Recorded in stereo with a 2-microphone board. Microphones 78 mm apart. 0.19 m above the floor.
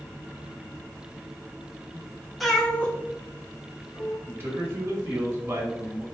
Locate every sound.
2.4 s a cat meowing: centre (ahead or behind), 0.7 m; by 4.2 s 50° left (ahead or behind), 1.5 m
4.3 s a man speaking: 30° right (ahead or behind), 1.4 m